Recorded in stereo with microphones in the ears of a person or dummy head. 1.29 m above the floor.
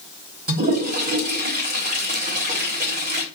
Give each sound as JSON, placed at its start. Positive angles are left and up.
{"t": 0.5, "sound": "a toilet flushing", "side_deg": -45, "distance_m": 1.3}